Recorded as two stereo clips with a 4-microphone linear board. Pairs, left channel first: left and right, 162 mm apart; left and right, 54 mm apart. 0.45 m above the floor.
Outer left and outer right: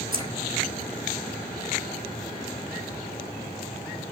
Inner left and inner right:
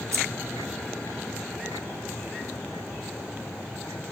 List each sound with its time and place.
0.1 s keys jangling: 65° right (ahead or behind), 3.5 m